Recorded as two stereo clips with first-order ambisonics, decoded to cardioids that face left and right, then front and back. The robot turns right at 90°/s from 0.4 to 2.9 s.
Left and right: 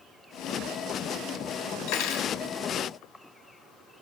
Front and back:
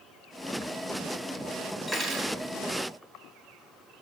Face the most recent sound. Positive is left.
turn(degrees=-165)